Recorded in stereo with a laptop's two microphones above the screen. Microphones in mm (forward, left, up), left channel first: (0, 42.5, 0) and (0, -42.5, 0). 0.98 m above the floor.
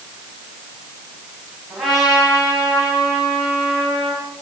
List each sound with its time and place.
1.7 s a trumpet: centre (ahead or behind), 6.5 m